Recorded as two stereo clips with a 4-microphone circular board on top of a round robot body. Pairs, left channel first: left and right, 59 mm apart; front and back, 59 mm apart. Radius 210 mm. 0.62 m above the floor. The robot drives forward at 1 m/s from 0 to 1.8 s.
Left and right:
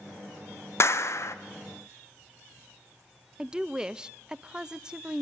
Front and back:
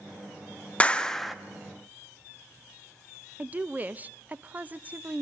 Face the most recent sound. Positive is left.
turn(degrees=-155)